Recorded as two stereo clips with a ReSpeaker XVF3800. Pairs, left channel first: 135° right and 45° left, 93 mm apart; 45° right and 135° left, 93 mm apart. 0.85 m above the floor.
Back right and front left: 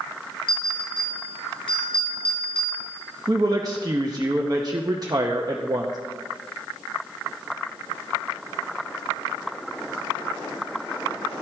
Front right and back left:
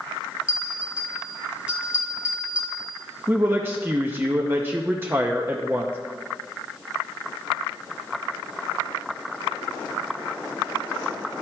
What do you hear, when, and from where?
0.5 s a bell: 145° right, 3.5 m
3.3 s a woman speaking: 75° left, 0.7 m